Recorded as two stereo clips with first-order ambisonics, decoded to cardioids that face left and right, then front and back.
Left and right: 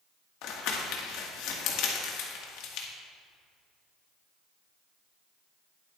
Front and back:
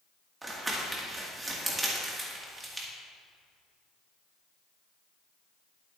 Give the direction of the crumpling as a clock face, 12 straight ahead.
9 o'clock.